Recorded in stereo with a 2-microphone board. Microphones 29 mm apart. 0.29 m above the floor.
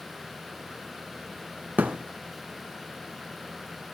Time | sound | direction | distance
1.8 | a thud | 80° right | 1.1 m